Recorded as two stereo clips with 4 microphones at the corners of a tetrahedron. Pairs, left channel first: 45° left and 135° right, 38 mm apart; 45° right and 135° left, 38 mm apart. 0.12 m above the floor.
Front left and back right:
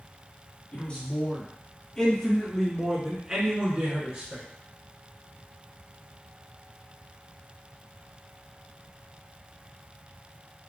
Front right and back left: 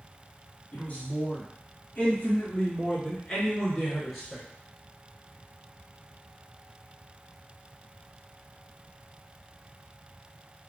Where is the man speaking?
Straight ahead, 2.5 m; by 4.4 s 140° right, 1.7 m.